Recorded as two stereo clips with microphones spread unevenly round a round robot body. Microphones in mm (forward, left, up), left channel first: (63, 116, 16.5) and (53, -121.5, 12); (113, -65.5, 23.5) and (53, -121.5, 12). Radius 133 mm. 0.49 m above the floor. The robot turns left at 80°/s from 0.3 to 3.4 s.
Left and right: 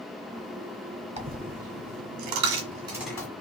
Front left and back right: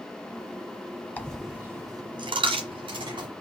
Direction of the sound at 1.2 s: 30° right.